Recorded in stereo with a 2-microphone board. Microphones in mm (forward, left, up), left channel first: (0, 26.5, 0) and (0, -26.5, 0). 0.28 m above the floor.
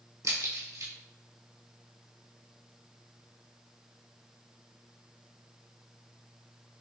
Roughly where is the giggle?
I don't hear a giggle.